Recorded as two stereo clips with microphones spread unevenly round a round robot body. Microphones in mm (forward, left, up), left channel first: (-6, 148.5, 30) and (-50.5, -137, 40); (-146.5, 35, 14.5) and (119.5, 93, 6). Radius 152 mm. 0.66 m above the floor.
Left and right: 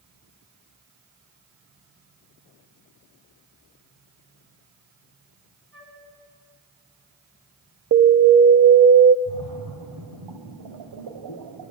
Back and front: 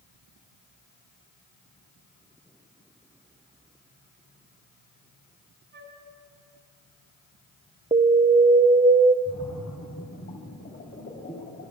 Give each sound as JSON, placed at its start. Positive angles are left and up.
{"t": 5.7, "sound": "a flute", "azimuth_deg": -45, "distance_m": 4.5}
{"t": 7.9, "sound": "an alarm", "azimuth_deg": -55, "distance_m": 0.7}
{"t": 9.2, "sound": "a splash", "azimuth_deg": -105, "distance_m": 3.0}